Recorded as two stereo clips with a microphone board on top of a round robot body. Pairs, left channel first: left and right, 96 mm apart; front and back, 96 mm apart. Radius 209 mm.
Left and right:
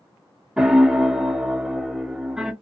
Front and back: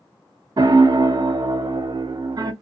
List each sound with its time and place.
0.6 s a piano: 170° right, 0.7 m